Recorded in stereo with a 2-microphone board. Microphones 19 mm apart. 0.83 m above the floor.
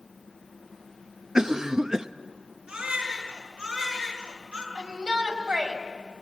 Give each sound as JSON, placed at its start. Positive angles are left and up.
{"t": 1.4, "sound": "a cough", "side_deg": -30, "distance_m": 0.5}
{"t": 2.7, "sound": "a baby crying", "side_deg": -75, "distance_m": 7.5}
{"t": 4.8, "sound": "a shout", "side_deg": -80, "distance_m": 4.5}